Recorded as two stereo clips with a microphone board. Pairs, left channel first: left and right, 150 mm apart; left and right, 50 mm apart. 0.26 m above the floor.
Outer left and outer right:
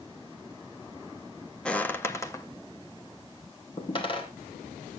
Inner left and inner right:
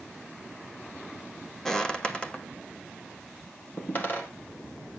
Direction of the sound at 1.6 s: 5° left (ahead or behind).